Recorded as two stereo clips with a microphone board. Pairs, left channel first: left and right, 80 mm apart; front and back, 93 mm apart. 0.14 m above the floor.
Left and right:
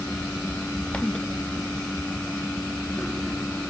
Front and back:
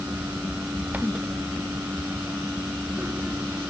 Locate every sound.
Only background noise.